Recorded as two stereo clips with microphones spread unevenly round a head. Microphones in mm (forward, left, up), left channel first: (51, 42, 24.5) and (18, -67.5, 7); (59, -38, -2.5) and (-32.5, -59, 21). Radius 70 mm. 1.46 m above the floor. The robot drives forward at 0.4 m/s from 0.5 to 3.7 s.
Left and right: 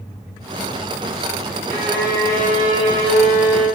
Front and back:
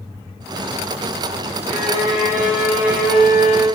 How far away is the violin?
About 1.7 m.